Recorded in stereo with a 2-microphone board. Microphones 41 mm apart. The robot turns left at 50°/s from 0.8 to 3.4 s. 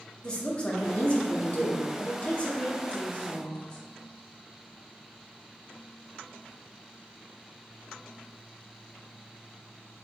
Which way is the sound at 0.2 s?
140° left.